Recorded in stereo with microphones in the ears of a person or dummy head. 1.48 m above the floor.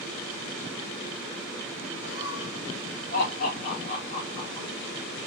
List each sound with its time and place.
2.0 s laughter: 60° left (ahead or behind), 3 m; by 4.7 s 25° left (ahead or behind), 3 m